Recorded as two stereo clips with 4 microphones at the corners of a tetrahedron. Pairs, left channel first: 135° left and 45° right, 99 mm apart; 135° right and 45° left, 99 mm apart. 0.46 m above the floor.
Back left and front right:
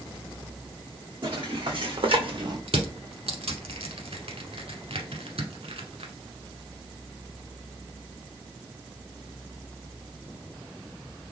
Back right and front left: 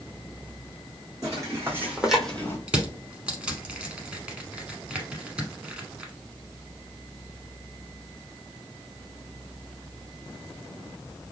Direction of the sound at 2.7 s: 35° right.